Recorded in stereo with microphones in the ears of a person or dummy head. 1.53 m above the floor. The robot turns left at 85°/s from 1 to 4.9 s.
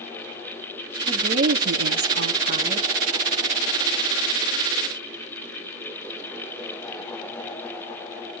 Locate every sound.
1.1 s a woman speaking: 15° right, 3 m; by 2.9 s 170° right, 3 m